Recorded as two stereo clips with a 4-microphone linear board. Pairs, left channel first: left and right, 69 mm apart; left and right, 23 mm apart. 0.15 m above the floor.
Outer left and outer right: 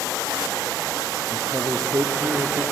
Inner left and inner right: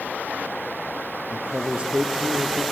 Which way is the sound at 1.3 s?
60° right (ahead or behind).